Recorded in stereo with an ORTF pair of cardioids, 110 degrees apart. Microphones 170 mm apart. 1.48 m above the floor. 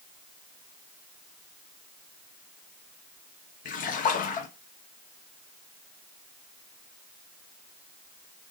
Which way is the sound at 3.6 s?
60° left.